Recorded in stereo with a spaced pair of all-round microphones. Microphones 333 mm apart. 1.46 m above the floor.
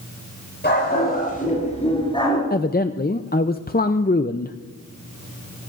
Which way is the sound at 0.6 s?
30° left (ahead or behind).